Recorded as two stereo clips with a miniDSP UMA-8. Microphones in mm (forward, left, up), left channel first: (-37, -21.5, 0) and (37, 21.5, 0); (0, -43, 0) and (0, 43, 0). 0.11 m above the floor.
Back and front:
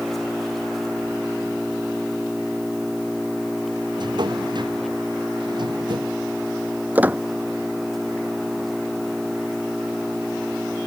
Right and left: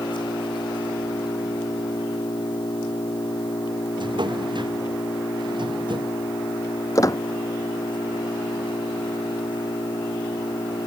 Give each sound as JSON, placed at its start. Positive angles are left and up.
{"t": 0.0, "sound": "an engine running", "azimuth_deg": -65}
{"t": 4.0, "sound": "a drawer", "azimuth_deg": 60}
{"t": 7.0, "sound": "a squeak", "azimuth_deg": -40}